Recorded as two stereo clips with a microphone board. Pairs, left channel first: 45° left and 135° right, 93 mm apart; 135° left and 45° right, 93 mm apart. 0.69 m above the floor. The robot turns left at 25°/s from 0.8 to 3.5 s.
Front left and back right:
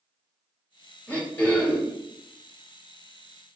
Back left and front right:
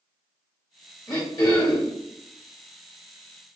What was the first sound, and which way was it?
Throat clearing, 120° left.